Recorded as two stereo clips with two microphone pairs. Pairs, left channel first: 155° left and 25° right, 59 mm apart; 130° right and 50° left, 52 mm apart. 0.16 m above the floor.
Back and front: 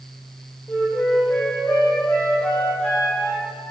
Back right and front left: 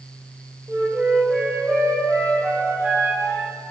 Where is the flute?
85° left, 2 m.